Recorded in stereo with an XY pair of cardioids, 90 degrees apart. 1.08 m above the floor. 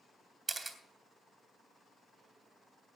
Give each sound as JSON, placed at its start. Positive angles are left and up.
{"t": 0.5, "sound": "a camera shutter", "azimuth_deg": -35, "distance_m": 2.0}